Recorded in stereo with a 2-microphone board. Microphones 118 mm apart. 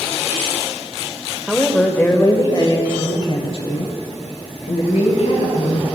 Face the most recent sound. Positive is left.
turn(degrees=65)  # may be behind; listen again after turning